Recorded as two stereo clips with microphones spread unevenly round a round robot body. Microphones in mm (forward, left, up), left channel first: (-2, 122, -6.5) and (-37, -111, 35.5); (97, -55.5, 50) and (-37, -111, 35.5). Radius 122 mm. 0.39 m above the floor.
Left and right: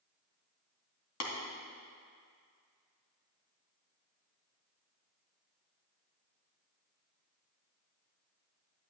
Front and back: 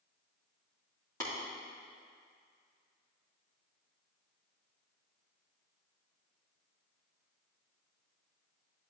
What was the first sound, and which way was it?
Tapping, 100° left.